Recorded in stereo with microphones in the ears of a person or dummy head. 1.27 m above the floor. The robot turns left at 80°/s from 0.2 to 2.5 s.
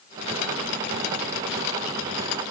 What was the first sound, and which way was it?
Only background noise.